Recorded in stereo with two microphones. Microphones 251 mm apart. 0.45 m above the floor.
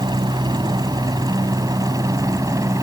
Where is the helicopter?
20° right (ahead or behind); by 2.8 s 15° right (ahead or behind).